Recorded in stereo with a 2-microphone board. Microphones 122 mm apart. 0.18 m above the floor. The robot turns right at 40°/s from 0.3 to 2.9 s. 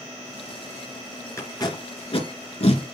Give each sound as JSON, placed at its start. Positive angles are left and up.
{"t": 1.4, "sound": "tape being pulled", "side_deg": 25, "distance_m": 2.5}